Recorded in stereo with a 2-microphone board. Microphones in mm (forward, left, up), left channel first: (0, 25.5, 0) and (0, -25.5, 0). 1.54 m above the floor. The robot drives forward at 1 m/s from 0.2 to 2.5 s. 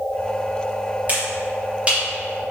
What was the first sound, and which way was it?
A finger snap, 35° right (ahead or behind).